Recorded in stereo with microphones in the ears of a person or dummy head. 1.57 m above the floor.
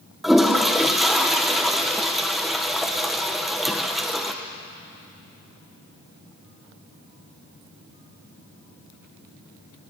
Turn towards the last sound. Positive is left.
turn(degrees=0)  # may be behind; listen again after turning